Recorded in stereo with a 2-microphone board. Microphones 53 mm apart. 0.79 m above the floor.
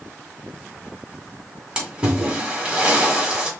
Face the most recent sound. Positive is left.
turn(degrees=-20)  # may be behind; listen again after turning